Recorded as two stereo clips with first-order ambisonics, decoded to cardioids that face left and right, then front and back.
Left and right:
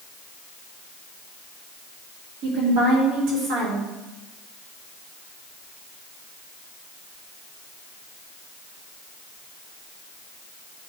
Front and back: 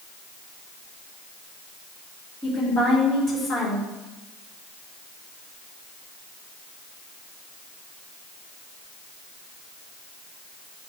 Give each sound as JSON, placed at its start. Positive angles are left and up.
{"t": 2.4, "sound": "a woman speaking", "azimuth_deg": -70, "distance_m": 3.5}